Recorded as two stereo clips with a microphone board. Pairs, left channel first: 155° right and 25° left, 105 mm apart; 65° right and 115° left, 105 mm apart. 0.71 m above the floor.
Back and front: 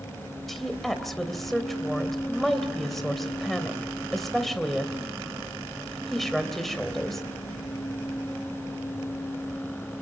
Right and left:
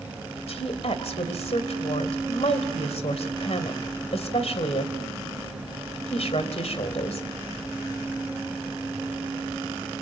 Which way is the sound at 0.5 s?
70° right.